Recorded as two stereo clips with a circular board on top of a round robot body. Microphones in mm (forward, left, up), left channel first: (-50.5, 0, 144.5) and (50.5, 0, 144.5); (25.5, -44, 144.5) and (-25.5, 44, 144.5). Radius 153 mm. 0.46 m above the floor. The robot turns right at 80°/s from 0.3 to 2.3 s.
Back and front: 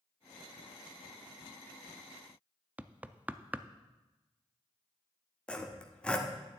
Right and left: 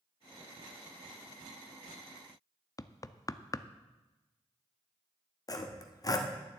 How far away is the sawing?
About 1.2 m.